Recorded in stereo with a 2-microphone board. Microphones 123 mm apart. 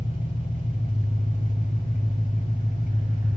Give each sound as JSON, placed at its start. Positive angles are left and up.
{"t": 0.0, "sound": "an engine running", "side_deg": 70, "distance_m": 4.0}